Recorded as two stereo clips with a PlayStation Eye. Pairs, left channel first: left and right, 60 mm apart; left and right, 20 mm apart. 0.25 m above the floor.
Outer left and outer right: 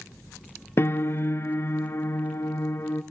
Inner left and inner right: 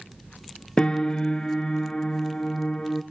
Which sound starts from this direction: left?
A piano, at 0.8 s.